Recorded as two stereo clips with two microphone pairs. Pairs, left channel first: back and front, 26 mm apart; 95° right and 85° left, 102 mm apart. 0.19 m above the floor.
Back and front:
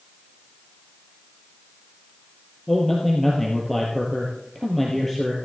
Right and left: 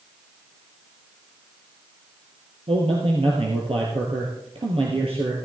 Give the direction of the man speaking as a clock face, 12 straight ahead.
9 o'clock.